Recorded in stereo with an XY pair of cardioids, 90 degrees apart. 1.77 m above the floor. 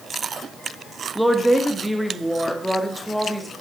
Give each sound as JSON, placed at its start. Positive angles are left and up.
{"t": 1.1, "sound": "a woman speaking", "azimuth_deg": -5, "distance_m": 1.0}